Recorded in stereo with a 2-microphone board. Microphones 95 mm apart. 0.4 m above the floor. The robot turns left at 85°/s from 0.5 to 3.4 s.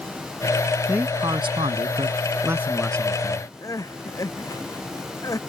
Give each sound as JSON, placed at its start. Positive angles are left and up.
{"t": 0.9, "sound": "a man speaking", "azimuth_deg": -15}
{"t": 3.6, "sound": "crying", "side_deg": 35}